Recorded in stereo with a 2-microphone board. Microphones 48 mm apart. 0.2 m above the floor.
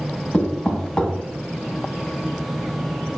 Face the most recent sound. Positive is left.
turn(degrees=15)  # may be behind; listen again after turning